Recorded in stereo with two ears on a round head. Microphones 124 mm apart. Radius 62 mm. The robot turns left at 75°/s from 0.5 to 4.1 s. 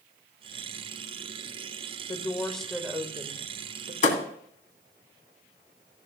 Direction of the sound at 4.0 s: 55° left (ahead or behind).